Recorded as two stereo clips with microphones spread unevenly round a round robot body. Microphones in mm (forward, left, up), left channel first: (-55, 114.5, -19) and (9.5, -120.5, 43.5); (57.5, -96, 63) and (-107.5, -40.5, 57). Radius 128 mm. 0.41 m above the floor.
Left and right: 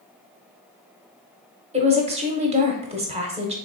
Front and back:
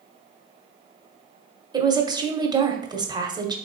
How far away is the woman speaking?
About 0.9 m.